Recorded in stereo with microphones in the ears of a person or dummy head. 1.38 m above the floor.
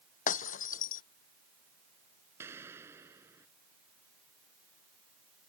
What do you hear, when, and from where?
0.3 s breaking glass: 40° left (ahead or behind)
2.4 s an explosion: 15° right (ahead or behind)